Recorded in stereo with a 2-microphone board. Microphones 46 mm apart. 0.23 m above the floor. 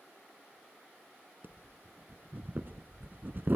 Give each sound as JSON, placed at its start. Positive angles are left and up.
{"t": 1.4, "sound": "breathing", "side_deg": -45, "distance_m": 1.1}